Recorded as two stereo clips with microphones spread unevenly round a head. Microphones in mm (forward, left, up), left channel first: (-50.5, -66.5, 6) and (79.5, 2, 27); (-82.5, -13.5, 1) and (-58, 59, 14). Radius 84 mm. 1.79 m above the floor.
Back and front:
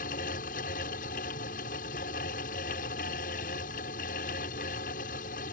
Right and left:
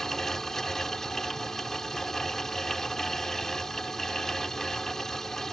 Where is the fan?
165° left.